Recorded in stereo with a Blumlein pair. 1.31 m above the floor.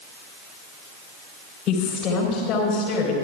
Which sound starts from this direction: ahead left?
A woman speaking, at 1.7 s.